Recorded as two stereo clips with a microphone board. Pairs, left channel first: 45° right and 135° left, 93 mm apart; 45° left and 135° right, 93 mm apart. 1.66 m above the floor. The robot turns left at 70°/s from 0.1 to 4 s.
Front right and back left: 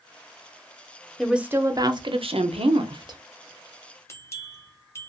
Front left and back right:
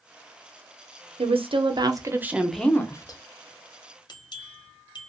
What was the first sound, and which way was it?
A woman speaking, 135° right.